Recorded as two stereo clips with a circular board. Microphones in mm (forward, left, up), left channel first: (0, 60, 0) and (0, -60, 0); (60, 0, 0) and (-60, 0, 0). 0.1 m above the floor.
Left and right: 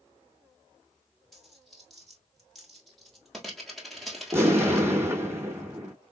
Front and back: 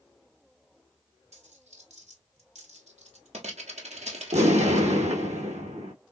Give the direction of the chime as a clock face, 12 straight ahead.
I don't hear a chime.